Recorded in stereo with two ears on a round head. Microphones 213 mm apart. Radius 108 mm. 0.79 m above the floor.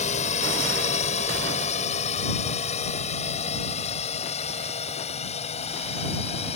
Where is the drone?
30° left (ahead or behind); by 6.6 s 25° left (ahead or behind).